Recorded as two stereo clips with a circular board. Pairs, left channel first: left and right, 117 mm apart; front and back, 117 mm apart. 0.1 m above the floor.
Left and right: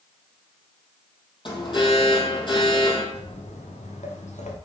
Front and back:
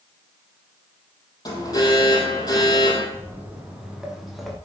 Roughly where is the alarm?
Ahead left.